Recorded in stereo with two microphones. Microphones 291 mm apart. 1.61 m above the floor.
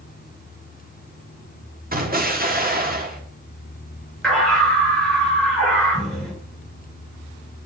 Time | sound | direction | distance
1.9 | an explosion | 30° right (ahead or behind) | 1.6 m
4.2 | a scream | centre (ahead or behind) | 7.5 m